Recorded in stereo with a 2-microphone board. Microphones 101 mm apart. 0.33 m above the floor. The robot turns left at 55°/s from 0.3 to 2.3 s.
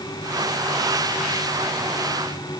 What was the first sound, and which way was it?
Only background noise.